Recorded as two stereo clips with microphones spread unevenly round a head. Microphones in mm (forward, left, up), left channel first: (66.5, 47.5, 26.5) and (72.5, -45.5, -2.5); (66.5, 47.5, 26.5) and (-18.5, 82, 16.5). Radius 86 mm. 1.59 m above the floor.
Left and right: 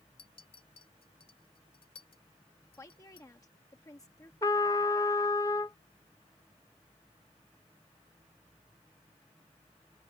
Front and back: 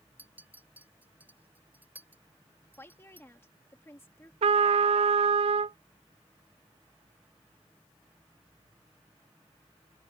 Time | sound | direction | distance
0.2 | a clink | 85° left | ?
2.8 | a woman speaking | 40° left | ?
4.4 | a trumpet | 150° left | ?